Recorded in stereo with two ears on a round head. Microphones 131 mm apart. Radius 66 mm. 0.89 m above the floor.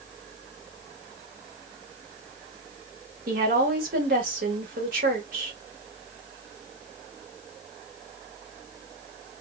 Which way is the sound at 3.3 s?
70° right (ahead or behind).